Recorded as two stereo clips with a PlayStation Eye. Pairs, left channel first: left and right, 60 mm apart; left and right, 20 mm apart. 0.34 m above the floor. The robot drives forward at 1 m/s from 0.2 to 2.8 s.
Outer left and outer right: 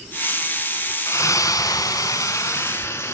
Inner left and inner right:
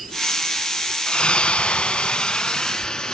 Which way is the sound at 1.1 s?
55° left (ahead or behind).